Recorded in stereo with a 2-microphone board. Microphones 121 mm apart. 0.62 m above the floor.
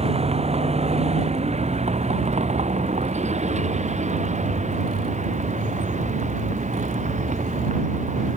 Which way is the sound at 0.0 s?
60° right (ahead or behind).